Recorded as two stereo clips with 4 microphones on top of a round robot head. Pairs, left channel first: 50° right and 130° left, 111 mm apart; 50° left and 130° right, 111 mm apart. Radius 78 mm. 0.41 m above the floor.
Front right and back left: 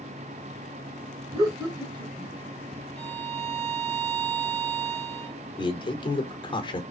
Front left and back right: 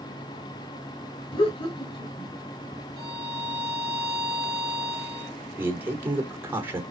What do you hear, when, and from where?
1.3 s laughter: 85° left, 2 m
3.0 s a violin: 165° left, 2 m
5.6 s a man speaking: 65° right, 1.3 m